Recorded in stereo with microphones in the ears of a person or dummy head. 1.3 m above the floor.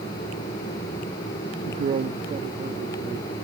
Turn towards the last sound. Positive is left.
turn(degrees=-20)  # may be behind; listen again after turning